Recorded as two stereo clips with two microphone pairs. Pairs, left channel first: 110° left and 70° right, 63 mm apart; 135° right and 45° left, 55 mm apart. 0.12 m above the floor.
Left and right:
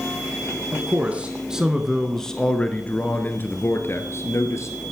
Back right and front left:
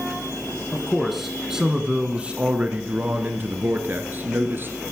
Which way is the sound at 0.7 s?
50° right.